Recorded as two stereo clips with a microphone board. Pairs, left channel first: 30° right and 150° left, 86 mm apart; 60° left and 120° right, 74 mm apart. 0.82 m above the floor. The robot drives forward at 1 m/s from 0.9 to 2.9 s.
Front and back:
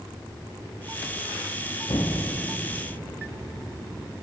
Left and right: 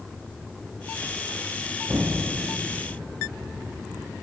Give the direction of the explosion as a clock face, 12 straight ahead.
2 o'clock.